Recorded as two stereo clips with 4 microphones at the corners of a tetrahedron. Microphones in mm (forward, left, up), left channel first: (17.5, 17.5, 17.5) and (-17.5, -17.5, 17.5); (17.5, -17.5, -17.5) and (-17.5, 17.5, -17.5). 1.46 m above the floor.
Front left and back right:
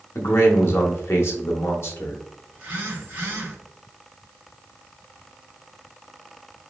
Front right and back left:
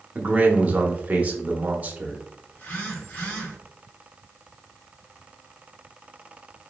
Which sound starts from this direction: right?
A phone buzzing, at 2.5 s.